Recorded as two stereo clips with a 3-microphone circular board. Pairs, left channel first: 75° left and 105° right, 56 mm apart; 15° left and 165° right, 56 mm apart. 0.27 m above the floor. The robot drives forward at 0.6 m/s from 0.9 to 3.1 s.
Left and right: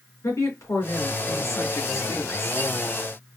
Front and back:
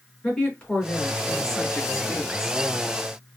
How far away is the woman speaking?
About 3 m.